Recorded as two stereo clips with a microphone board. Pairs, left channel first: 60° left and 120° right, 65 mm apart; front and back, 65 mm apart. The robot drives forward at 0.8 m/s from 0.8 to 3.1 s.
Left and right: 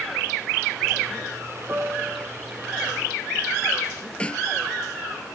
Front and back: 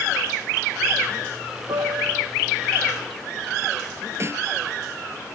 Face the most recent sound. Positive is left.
turn(degrees=135)